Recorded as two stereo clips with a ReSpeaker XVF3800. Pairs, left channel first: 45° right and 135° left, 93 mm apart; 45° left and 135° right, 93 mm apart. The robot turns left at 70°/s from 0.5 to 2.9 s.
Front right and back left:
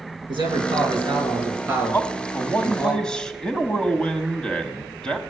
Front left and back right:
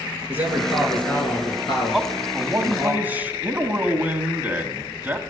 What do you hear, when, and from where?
0.3 s a man speaking: 155° left, 3.5 m; by 2.9 s 15° right, 3.5 m
1.9 s a man speaking: 45° right, 1.0 m; by 5.2 s 110° right, 1.0 m